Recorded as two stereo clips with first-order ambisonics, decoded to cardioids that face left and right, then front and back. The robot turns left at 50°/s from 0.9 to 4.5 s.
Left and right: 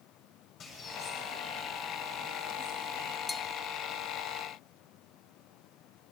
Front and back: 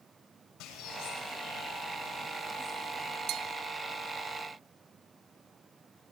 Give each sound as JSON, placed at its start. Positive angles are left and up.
{"t": 0.6, "sound": "a bird", "azimuth_deg": 35, "distance_m": 6.5}
{"t": 3.3, "sound": "a bell", "azimuth_deg": 165, "distance_m": 0.7}